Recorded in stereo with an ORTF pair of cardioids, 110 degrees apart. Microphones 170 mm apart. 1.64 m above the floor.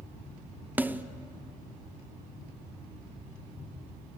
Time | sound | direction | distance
0.8 | a snare drum | 10° right | 0.8 m